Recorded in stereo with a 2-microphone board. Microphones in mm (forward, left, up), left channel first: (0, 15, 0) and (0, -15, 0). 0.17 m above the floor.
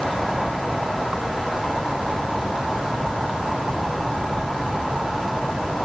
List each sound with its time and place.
Only background noise.